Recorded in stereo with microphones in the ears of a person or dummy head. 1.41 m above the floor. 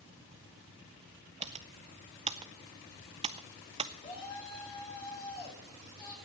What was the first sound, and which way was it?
Typing on a keyboard, 30° right (ahead or behind).